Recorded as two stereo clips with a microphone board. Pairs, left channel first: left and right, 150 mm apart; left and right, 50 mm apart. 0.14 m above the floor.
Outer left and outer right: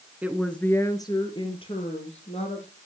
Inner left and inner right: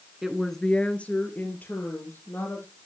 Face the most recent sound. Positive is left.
turn(degrees=45)  # may be behind; listen again after turning